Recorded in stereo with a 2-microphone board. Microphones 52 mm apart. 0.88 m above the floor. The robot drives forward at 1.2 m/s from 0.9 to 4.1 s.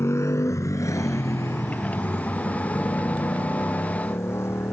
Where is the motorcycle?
60° left (ahead or behind); by 4.7 s 55° left (ahead or behind).